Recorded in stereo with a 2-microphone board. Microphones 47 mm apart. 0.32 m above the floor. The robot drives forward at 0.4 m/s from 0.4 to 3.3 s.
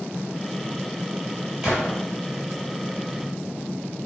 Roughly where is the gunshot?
Centre.